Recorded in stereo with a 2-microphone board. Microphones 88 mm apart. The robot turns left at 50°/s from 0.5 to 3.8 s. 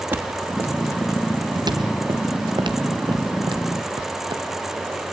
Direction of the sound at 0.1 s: 20° right (ahead or behind).